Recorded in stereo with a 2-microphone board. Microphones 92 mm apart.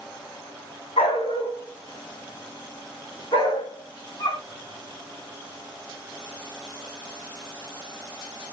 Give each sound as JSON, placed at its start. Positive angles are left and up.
{"t": 1.0, "sound": "a dog barking", "side_deg": 90, "distance_m": 4.0}